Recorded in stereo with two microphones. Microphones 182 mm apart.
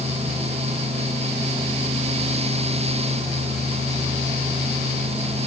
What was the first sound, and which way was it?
Only background noise.